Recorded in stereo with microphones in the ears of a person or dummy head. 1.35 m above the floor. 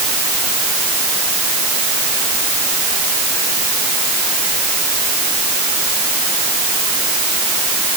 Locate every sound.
Only background noise.